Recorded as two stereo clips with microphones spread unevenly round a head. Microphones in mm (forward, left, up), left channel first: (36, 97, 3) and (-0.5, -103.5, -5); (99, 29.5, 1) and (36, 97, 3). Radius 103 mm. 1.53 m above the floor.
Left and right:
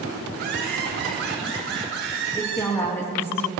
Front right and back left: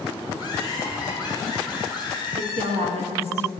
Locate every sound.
0.3 s laughter: 150° right, 3.5 m; by 2.7 s 140° right, 5 m
2.3 s a woman speaking: 160° left, 2 m